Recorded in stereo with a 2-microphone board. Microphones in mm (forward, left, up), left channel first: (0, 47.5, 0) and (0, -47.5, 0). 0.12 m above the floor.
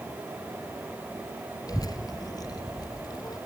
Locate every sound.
1.7 s a child speaking: 40° left (ahead or behind), 1.2 m